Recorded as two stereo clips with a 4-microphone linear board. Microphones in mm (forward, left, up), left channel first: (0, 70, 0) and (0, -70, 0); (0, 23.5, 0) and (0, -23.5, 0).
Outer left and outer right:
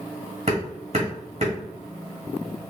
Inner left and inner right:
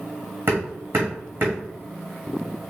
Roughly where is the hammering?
Right.